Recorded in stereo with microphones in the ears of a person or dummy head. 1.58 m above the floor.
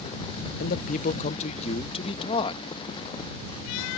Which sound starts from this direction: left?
A man speaking, at 0.6 s.